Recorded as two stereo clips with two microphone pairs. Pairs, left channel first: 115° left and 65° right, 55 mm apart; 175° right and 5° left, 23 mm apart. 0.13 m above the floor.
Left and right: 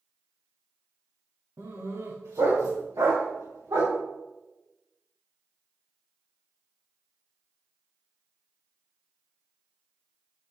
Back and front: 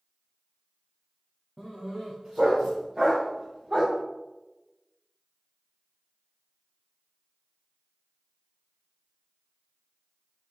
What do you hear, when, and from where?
1.6 s a dog barking: 70° right, 4.5 m; by 4.0 s 60° right, 5 m